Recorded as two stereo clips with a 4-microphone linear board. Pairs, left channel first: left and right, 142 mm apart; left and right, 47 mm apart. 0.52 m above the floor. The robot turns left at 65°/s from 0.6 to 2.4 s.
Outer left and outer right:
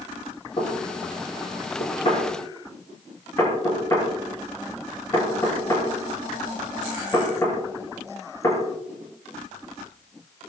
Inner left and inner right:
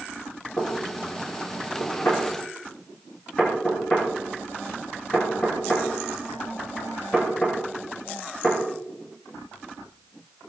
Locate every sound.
0.6 s knocking: 40° left (ahead or behind), 6 m; by 8.6 s 20° left (ahead or behind), 6 m